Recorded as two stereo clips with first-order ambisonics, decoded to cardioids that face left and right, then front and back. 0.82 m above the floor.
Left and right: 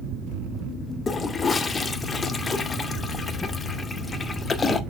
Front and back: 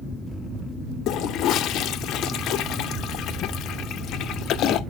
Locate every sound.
1.1 s a toilet flushing: 20° left, 0.6 m